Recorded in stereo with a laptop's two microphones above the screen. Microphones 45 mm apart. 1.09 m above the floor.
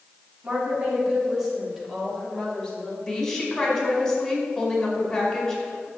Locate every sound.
0.4 s a woman speaking: 30° right (ahead or behind), 3 m; by 3.0 s 20° left (ahead or behind), 2.5 m
3.1 s a woman speaking: 15° left (ahead or behind), 4.5 m